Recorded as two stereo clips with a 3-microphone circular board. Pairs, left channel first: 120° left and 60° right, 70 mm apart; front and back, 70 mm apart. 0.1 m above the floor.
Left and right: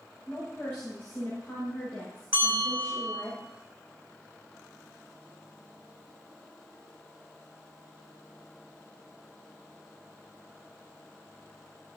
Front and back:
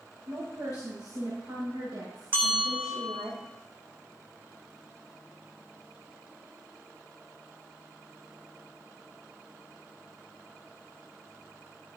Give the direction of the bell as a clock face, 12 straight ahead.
4 o'clock.